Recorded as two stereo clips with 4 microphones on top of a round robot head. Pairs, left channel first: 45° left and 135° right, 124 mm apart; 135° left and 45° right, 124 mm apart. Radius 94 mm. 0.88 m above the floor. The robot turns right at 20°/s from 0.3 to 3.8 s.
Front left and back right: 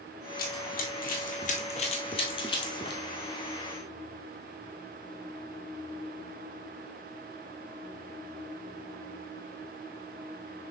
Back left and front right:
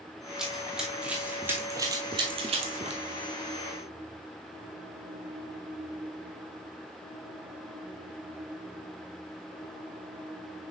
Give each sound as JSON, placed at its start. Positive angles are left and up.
{"t": 0.4, "sound": "running footsteps", "azimuth_deg": 40, "distance_m": 1.4}